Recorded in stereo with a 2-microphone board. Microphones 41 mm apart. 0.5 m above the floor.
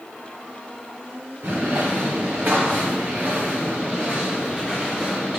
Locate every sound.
1.4 s footsteps: 70° right (ahead or behind), 2.5 m; by 5.4 s 10° right (ahead or behind), 2.5 m